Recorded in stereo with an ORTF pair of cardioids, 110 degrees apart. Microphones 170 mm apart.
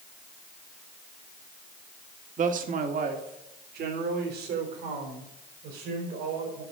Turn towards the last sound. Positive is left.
turn(degrees=-80)